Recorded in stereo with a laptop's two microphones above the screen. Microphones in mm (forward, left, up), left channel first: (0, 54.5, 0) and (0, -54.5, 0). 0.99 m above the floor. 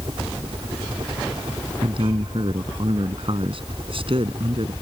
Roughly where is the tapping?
No tapping in this recording.